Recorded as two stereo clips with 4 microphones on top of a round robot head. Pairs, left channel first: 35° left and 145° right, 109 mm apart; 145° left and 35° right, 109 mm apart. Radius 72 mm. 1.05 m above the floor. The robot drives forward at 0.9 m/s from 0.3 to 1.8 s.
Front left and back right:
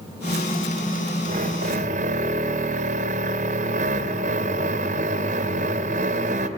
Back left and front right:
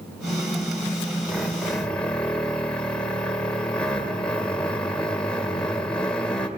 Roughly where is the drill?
Behind right.